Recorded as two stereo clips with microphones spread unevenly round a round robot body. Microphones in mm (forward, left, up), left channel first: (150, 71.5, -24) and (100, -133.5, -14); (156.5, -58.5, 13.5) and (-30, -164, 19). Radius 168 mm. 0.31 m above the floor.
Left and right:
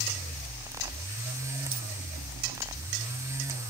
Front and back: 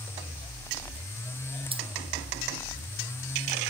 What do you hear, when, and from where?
1.7 s keys jangling: 85° right